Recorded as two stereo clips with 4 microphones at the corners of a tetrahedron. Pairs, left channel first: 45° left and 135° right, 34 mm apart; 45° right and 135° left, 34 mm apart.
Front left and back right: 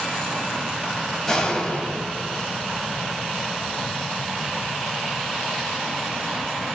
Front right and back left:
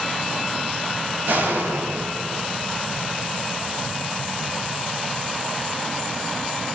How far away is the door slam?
About 8.5 m.